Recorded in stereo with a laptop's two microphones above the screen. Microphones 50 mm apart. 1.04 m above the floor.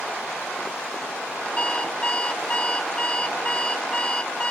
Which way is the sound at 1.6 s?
25° left (ahead or behind).